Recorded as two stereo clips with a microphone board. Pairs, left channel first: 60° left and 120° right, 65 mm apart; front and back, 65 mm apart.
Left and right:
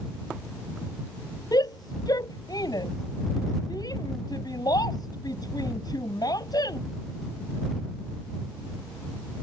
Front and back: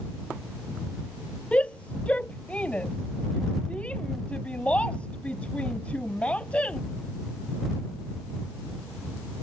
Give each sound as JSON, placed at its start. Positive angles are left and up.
{"t": 1.5, "sound": "a shout", "azimuth_deg": 70}